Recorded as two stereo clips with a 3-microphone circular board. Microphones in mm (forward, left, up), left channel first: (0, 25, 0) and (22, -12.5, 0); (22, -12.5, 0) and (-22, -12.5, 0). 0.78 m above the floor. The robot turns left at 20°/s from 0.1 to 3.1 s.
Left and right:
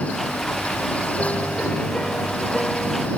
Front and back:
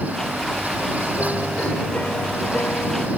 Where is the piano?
65° left; by 3.1 s 30° left.